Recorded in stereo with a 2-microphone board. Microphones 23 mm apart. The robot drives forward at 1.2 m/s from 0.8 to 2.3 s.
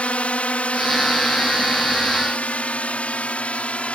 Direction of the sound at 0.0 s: 65° left (ahead or behind).